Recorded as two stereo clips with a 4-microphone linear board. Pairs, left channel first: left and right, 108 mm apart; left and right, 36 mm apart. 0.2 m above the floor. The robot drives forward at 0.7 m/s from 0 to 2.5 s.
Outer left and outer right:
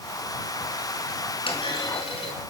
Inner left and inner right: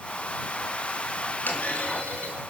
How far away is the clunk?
About 3 m.